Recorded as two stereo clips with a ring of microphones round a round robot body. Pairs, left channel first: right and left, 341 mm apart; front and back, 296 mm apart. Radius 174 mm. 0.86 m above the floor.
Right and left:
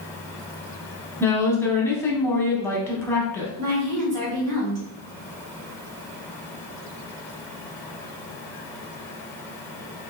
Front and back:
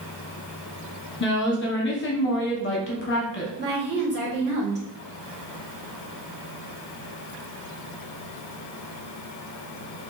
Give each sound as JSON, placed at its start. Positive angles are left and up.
{"t": 1.2, "sound": "a woman speaking", "azimuth_deg": -10, "distance_m": 0.9}
{"t": 3.6, "sound": "a woman speaking", "azimuth_deg": 125, "distance_m": 1.9}